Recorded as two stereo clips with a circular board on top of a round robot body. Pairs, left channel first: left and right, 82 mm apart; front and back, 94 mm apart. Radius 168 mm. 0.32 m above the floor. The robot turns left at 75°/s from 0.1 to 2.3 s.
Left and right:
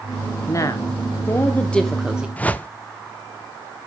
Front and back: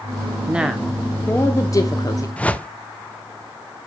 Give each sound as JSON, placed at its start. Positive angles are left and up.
{"t": 0.5, "sound": "a woman speaking", "azimuth_deg": 115, "distance_m": 1.1}
{"t": 2.4, "sound": "a whoosh", "azimuth_deg": 50, "distance_m": 0.9}